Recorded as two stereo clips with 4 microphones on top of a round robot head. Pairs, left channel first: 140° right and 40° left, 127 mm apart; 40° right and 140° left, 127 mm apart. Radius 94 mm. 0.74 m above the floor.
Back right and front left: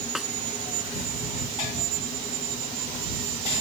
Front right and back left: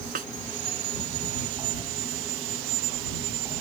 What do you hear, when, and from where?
0.1 s a snare drum: 125° left